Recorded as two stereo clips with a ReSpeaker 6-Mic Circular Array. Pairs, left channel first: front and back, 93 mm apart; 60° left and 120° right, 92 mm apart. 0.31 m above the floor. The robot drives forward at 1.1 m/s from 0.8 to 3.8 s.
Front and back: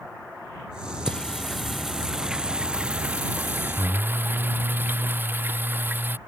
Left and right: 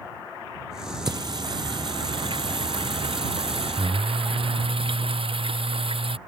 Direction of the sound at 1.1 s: 85° right.